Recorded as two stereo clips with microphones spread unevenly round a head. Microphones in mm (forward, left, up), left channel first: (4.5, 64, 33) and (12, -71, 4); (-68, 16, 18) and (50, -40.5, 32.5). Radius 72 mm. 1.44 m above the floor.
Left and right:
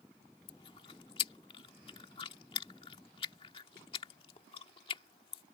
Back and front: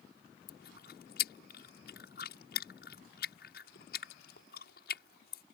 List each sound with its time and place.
0.5 s chewing: 150° left